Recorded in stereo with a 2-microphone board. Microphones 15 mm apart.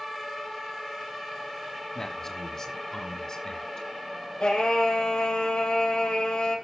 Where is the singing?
75° left (ahead or behind), 5.5 m.